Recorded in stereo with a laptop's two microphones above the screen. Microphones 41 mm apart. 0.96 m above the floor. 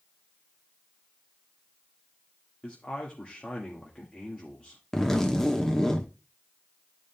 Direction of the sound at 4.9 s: 10° left (ahead or behind).